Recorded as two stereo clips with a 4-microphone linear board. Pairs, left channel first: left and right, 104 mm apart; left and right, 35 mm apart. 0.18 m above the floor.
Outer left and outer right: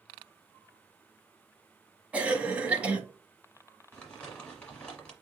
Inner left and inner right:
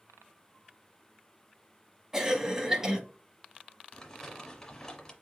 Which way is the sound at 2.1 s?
15° right (ahead or behind).